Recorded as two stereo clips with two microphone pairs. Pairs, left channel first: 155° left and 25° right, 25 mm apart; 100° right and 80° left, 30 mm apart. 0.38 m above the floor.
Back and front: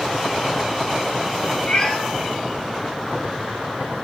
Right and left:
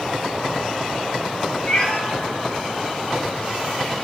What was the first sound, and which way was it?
A cat meowing, 155° right.